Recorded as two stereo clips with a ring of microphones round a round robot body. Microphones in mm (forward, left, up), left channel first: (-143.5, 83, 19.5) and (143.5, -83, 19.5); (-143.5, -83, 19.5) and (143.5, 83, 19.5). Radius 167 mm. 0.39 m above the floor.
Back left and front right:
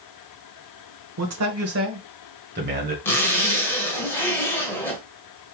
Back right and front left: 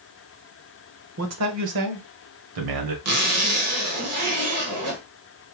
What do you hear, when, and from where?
1.2 s a man speaking: 5° right, 1.1 m; by 3.0 s 30° left, 1.7 m
3.0 s a zipper: 65° left, 1.4 m